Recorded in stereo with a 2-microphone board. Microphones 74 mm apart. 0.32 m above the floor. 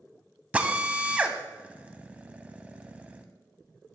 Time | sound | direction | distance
0.5 | a drill | 20° right (ahead or behind) | 0.7 m